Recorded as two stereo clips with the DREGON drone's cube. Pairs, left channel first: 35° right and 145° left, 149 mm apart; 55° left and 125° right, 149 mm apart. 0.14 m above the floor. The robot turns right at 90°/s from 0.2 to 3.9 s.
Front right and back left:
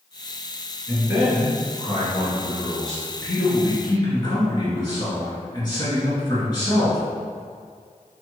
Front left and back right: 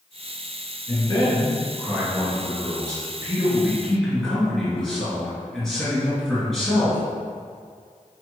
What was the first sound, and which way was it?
A man speaking, 60° left.